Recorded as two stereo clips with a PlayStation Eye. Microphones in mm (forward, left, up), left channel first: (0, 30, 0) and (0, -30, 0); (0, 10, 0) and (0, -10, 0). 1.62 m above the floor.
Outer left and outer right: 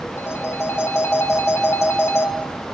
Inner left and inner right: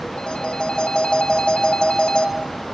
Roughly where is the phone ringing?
Left.